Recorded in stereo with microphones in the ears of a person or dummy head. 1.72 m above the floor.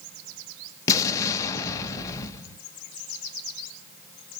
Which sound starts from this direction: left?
An explosion, at 0.9 s.